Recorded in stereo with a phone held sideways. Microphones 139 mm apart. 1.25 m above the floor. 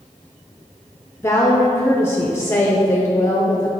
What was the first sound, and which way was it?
A woman speaking, 20° left (ahead or behind).